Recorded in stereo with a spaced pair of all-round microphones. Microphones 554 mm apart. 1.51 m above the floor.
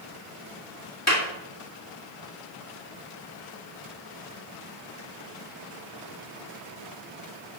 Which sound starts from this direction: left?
A clap, at 1.1 s.